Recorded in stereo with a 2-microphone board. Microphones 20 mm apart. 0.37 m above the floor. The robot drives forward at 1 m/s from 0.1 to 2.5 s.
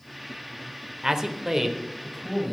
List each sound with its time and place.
1.0 s a man speaking: 30° right (ahead or behind), 0.9 m; by 2.5 s 15° right (ahead or behind), 1.8 m